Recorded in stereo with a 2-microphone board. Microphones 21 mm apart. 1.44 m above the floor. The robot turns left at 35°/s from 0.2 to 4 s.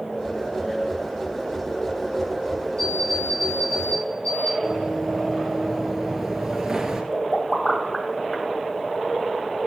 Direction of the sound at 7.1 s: 30° left (ahead or behind).